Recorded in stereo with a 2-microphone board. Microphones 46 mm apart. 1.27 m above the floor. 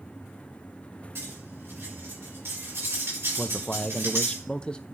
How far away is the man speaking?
About 0.8 m.